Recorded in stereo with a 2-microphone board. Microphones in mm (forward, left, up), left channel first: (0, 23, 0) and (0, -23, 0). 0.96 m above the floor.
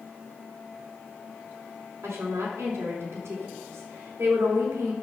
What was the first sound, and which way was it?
A woman speaking, 75° right (ahead or behind).